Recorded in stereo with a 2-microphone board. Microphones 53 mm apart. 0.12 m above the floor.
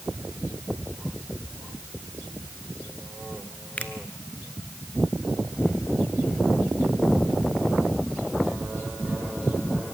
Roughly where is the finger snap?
Left.